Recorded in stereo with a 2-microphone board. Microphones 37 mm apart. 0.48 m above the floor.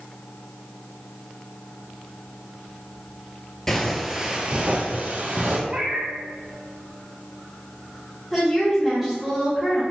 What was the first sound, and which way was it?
Footsteps, 10° left (ahead or behind).